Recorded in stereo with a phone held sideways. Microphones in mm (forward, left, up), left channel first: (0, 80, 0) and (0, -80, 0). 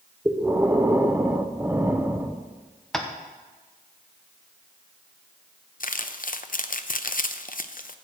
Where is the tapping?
5° left (ahead or behind), 1.0 m.